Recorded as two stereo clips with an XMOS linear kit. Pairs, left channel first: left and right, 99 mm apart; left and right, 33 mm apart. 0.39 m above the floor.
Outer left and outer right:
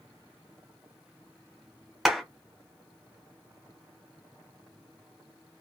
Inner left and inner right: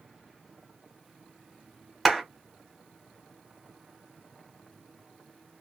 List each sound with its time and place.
2.0 s a clap: 5° right (ahead or behind), 1.2 m